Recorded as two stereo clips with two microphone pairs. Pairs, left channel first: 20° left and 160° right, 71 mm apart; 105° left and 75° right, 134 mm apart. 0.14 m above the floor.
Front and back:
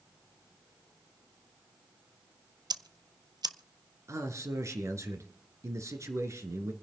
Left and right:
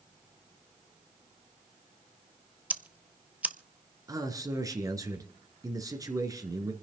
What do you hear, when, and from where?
2.7 s ticking: 155° right, 0.7 m
4.1 s a man speaking: 135° right, 2.5 m